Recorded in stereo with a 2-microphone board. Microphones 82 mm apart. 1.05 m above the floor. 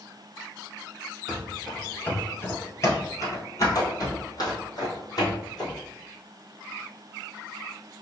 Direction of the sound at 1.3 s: 5° right (ahead or behind).